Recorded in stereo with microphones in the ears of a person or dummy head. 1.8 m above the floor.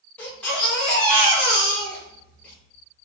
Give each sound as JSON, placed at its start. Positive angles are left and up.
{"t": 0.2, "sound": "a baby crying", "side_deg": 5, "distance_m": 1.6}